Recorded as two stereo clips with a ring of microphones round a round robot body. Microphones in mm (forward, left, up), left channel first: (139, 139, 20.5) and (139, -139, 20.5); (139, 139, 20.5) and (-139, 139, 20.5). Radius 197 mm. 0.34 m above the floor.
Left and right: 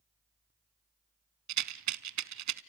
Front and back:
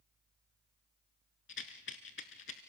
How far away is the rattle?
About 0.7 m.